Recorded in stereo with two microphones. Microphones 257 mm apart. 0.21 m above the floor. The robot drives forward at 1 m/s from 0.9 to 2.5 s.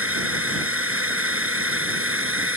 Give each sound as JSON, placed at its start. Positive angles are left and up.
{"t": 0.0, "sound": "a drone", "side_deg": -55}